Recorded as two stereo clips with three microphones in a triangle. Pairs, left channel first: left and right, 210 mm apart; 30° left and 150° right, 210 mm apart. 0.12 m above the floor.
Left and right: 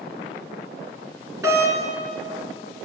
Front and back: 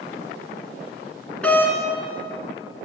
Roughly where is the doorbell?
Ahead right.